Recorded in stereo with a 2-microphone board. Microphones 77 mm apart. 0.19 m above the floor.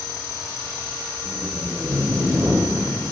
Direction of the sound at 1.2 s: 20° right (ahead or behind).